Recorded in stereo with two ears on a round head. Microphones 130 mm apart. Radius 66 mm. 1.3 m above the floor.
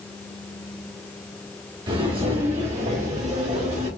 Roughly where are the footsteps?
Right.